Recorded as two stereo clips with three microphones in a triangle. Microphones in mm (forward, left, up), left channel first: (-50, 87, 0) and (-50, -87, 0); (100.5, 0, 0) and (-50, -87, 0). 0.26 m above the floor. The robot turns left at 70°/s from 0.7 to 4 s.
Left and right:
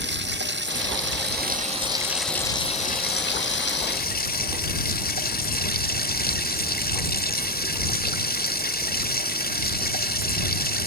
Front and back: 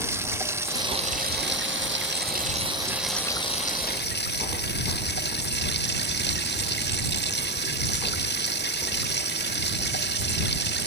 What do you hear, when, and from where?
0.0 s running water: 75° right; by 10.9 s 55° left